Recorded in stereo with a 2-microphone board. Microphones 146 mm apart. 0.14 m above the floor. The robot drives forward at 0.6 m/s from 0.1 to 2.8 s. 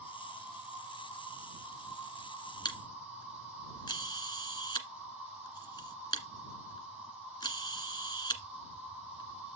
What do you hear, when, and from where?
0.0 s an insect: 10° right (ahead or behind), 5 m
2.6 s a camera shutter: 30° left (ahead or behind), 1.6 m